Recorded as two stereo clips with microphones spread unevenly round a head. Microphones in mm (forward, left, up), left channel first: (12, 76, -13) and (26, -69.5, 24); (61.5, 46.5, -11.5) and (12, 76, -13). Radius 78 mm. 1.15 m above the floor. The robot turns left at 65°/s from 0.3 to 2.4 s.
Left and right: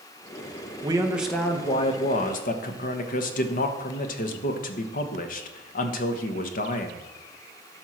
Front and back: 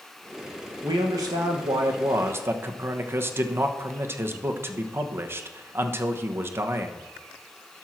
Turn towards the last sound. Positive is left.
turn(degrees=105)